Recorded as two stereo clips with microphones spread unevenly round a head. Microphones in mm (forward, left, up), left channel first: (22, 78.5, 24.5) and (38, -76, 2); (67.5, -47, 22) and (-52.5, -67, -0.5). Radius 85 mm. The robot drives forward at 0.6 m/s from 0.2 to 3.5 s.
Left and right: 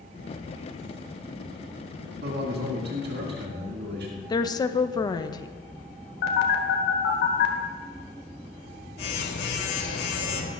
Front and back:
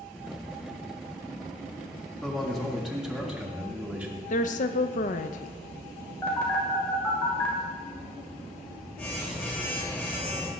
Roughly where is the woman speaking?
Ahead left.